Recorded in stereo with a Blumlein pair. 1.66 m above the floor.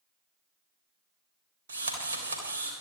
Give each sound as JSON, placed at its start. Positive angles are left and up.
{"t": 1.7, "sound": "a drill", "azimuth_deg": -70, "distance_m": 3.5}